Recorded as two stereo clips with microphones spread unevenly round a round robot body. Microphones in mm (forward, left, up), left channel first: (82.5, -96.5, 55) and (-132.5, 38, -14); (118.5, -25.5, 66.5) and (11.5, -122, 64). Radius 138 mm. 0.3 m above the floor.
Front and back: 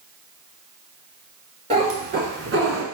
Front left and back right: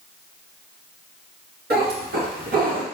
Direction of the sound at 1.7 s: 145° right.